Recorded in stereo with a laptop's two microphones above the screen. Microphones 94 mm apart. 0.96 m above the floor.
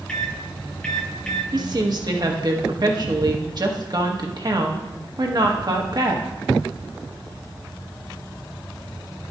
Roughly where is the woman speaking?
Right.